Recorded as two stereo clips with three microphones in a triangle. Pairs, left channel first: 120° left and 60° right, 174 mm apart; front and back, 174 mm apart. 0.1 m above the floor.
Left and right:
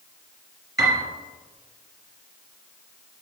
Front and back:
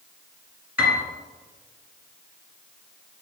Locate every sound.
0.8 s a piano: 105° right, 1.6 m